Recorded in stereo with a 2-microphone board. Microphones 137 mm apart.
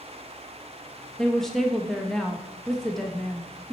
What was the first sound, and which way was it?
A woman speaking, 5° left (ahead or behind).